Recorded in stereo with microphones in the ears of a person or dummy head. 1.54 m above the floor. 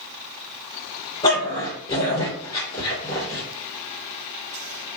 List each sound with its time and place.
1.2 s a dog barking: 30° left (ahead or behind), 2 m